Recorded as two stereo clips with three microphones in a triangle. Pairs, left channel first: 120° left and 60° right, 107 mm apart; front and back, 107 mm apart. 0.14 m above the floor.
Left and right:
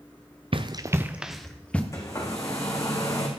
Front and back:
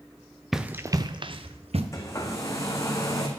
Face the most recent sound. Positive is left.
turn(degrees=65)